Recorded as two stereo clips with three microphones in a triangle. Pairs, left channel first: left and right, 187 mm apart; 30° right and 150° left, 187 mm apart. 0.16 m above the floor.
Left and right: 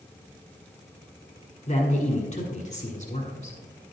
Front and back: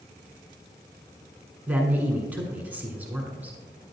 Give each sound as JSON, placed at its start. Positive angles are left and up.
{"t": 1.7, "sound": "a man speaking", "azimuth_deg": 75, "distance_m": 1.3}